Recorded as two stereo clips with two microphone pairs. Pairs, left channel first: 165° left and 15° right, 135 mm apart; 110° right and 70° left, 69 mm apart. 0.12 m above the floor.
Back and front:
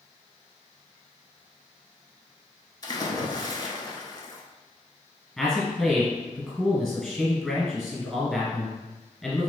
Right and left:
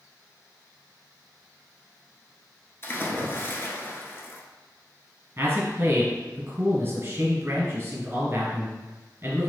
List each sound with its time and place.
2.8 s a splash: 145° right, 0.5 m
5.4 s a man speaking: 80° left, 1.3 m